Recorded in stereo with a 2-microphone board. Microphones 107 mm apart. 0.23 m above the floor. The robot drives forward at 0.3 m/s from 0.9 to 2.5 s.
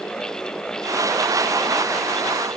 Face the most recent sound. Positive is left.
No sound to turn to.